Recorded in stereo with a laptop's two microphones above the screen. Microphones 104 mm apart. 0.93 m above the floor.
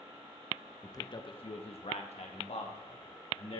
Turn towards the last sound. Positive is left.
turn(degrees=65)  # may be behind; listen again after turning